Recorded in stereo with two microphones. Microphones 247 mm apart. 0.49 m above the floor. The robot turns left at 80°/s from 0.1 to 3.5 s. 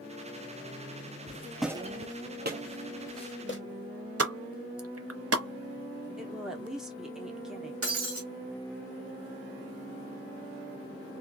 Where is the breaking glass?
65° right (ahead or behind), 1.0 m.